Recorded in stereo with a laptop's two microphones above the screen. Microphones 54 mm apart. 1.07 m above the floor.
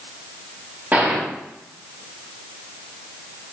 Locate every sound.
0.9 s a gunshot: 30° right (ahead or behind), 1.4 m